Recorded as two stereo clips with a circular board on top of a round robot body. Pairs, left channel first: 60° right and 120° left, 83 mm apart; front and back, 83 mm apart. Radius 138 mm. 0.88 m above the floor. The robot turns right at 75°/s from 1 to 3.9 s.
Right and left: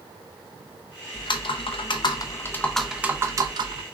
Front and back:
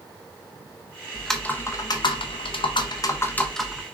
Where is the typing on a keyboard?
95° right, 0.6 m; by 3.8 s 105° left, 0.6 m.